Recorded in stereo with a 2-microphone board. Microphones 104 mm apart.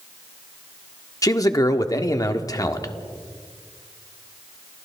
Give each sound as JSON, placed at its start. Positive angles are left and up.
{"t": 1.2, "sound": "a man speaking", "side_deg": 35, "distance_m": 1.5}